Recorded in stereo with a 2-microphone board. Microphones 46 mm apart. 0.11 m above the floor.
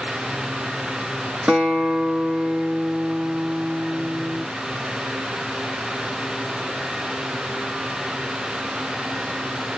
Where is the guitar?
30° right (ahead or behind), 1.2 m.